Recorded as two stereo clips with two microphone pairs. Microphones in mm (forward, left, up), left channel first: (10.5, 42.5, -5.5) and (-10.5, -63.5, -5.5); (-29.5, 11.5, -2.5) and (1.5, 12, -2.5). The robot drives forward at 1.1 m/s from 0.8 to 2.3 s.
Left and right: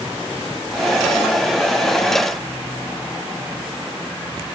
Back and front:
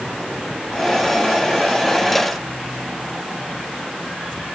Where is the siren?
I don't hear a siren.